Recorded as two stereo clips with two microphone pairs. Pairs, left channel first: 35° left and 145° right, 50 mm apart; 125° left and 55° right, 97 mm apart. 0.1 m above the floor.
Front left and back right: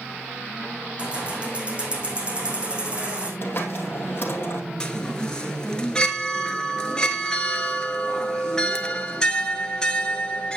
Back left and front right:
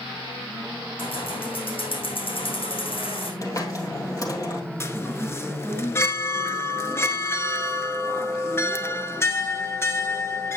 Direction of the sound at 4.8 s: 95° left.